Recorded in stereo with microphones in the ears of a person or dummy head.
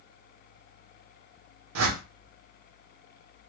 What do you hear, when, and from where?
1.8 s a whoosh: 85° right, 0.6 m